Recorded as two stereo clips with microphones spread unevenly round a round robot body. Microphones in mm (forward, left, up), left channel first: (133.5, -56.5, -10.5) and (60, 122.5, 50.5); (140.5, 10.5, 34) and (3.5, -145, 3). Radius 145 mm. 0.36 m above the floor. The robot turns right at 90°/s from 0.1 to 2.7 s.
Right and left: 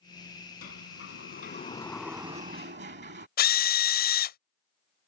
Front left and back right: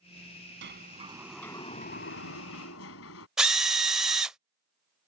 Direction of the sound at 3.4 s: 50° right.